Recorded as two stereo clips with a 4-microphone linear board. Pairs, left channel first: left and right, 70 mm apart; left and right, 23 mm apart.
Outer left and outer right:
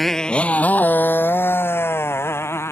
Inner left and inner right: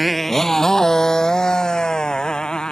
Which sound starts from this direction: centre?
A motorcycle, at 0.0 s.